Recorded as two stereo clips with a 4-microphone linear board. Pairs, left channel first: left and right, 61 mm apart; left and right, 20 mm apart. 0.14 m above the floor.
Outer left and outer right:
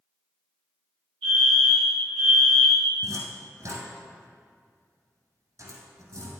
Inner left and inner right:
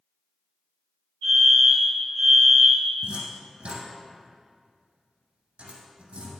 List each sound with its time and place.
1.2 s a fire alarm: 25° left (ahead or behind), 2.5 m
3.0 s a cupboard door: 55° right (ahead or behind), 2 m